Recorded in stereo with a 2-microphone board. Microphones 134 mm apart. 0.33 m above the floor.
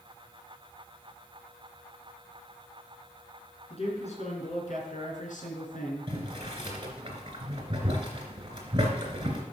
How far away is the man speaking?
About 4 m.